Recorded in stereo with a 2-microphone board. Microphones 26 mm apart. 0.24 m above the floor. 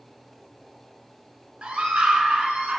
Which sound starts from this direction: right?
A scream, at 1.6 s.